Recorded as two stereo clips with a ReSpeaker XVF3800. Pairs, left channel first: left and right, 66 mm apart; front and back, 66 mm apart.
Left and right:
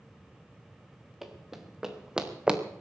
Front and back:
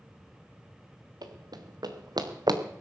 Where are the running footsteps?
175° right, 2 m; by 2.6 s 165° right, 1.6 m.